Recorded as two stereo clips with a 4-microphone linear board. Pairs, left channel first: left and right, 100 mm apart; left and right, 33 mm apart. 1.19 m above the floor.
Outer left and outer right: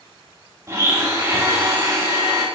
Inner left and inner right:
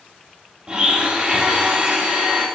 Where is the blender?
30° right (ahead or behind), 2 m.